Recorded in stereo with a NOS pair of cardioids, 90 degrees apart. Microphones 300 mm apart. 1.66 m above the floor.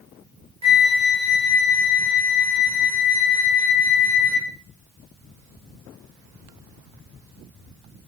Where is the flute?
20° right, 1.1 m.